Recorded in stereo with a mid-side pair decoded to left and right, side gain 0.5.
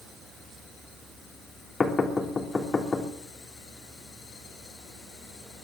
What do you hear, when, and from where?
1.8 s knocking: 30° left, 3 m